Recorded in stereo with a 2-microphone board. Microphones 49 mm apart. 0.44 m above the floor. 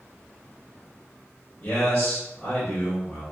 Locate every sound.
1.6 s a man speaking: 45° left (ahead or behind), 1.9 m